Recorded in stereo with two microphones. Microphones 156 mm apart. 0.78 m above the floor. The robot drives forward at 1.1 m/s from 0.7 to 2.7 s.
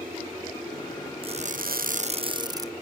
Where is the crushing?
40° right (ahead or behind), 0.7 m; by 2.7 s 25° right (ahead or behind), 1.2 m.